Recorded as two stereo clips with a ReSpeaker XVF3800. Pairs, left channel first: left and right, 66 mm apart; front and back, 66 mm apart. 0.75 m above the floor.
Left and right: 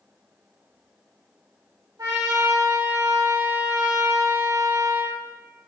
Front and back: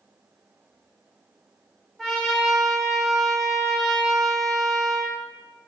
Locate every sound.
2.0 s a trumpet: 85° right, 2 m